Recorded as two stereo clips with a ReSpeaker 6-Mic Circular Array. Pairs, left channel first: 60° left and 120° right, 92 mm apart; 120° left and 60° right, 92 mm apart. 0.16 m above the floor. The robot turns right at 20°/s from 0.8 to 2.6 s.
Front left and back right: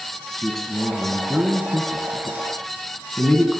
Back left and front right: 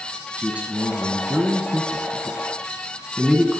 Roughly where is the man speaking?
Ahead.